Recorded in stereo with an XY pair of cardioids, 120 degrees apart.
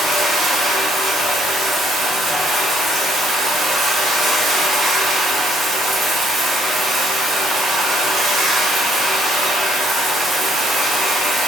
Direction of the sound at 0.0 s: 40° right.